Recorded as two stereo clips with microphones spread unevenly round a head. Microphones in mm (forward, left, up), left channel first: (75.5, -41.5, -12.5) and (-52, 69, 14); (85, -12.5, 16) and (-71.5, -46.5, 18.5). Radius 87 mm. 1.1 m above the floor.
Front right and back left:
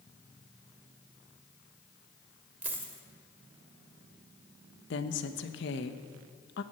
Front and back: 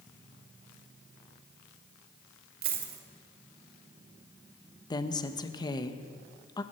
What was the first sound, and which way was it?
A dropped coin, 145° right.